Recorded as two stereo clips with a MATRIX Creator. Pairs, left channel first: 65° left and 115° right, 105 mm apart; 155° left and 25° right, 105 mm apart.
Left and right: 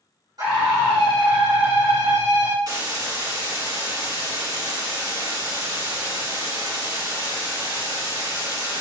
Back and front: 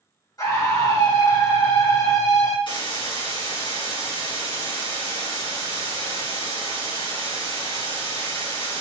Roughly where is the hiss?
Behind.